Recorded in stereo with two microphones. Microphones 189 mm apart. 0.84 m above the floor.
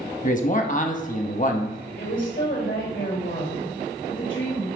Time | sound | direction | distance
0.2 | a man speaking | 45° left (ahead or behind) | 1.0 m
2.0 | a woman speaking | 80° left | 4 m